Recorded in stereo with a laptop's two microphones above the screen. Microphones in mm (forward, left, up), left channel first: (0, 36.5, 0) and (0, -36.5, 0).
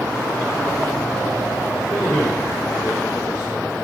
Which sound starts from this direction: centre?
A man speaking, at 1.9 s.